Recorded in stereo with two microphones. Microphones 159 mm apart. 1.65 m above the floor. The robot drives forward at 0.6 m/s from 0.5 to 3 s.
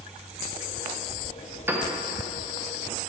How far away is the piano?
About 0.6 m.